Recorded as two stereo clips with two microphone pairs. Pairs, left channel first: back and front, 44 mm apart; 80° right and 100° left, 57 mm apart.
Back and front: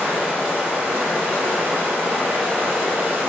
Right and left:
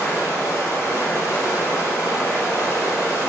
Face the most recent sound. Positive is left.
turn(degrees=-50)